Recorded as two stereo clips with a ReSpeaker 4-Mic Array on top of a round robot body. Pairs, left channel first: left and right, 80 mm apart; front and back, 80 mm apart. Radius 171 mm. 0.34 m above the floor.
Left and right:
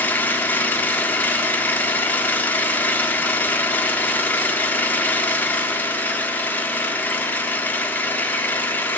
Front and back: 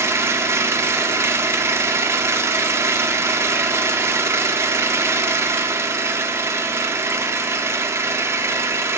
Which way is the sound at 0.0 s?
145° left.